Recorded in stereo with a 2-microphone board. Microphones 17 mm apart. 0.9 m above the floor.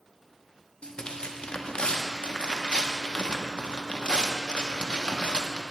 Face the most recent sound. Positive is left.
turn(degrees=70)  # may be behind; listen again after turning